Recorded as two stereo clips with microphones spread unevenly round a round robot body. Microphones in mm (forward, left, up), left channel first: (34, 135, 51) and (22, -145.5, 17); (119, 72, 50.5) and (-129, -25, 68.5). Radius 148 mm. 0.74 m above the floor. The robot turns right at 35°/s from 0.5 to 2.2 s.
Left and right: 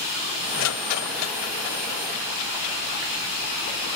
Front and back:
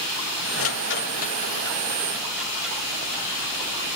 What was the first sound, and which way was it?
A rattle, 60° left.